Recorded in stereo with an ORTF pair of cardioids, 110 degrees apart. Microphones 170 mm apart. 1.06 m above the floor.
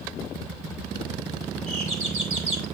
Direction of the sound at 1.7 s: 50° right.